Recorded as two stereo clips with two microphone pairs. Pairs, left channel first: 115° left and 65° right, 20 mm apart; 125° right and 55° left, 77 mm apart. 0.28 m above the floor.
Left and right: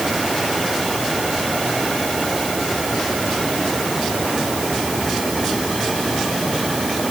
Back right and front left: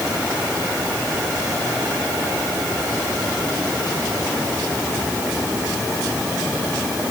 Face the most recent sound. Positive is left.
No sound to turn to.